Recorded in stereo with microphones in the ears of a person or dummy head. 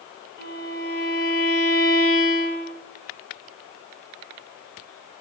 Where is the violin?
60° left (ahead or behind), 2.5 m.